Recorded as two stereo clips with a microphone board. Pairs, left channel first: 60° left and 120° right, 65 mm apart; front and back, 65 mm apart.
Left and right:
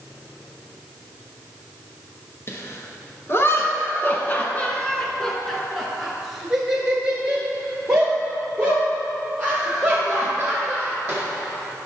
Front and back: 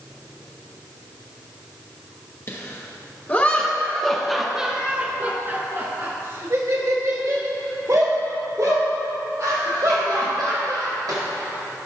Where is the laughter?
30° left, 1.6 m; by 11.2 s 175° left, 4 m.